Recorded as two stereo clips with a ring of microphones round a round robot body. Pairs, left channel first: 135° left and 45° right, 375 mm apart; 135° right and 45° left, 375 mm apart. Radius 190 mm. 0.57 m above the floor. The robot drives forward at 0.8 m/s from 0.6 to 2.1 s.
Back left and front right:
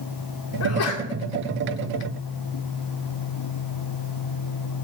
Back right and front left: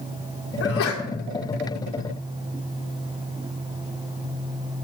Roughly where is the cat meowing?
I don't hear a cat meowing.